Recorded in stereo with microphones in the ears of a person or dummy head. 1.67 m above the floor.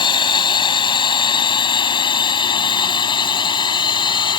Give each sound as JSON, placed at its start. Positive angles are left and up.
{"t": 0.0, "sound": "a drone", "side_deg": 25}